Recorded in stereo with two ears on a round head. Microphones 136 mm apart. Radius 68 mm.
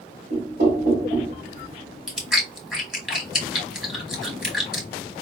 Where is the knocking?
70° right (ahead or behind), 3 m.